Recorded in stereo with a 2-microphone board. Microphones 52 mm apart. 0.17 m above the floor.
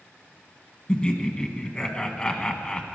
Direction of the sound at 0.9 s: 20° left (ahead or behind).